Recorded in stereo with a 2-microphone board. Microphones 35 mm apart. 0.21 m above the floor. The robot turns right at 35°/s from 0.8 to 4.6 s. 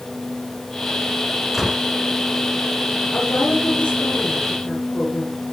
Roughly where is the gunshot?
Centre.